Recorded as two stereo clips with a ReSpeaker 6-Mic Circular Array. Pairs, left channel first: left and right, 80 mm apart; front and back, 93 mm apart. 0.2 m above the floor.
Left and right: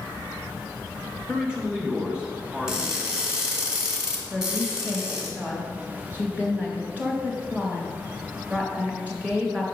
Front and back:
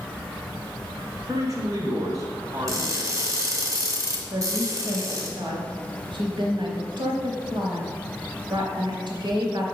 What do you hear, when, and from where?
1.3 s a man speaking: 165° right, 1.9 m
2.7 s crushing: 170° right, 1.8 m
4.3 s a woman speaking: 160° right, 2.5 m